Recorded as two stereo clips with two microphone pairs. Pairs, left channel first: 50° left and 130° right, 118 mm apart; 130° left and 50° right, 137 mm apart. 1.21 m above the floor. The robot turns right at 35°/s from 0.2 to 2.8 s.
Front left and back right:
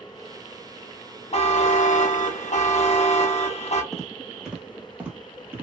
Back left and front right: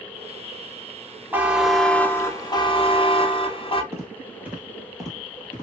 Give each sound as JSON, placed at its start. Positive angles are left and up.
{"t": 1.3, "sound": "a buzzer", "azimuth_deg": 25, "distance_m": 0.6}
{"t": 3.9, "sound": "footsteps", "azimuth_deg": -35, "distance_m": 1.2}